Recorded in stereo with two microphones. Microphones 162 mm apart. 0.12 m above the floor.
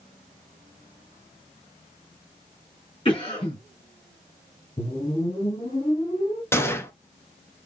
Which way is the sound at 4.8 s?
35° left (ahead or behind).